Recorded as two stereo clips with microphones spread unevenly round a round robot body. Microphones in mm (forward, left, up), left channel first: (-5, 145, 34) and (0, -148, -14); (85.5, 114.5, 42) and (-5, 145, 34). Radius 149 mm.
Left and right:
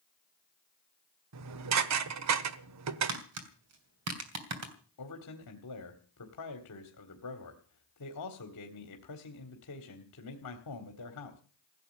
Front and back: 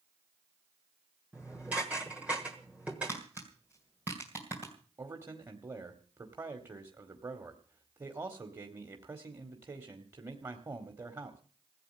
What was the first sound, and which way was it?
Dishes clattering, 115° right.